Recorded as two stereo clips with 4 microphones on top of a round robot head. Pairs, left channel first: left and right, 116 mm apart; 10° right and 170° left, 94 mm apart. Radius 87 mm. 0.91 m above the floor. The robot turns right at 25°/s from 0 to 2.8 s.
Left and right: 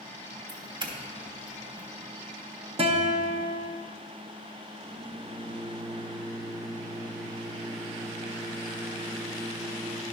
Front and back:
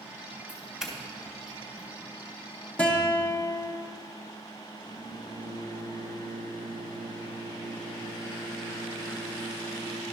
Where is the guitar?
85° right, 1.1 m.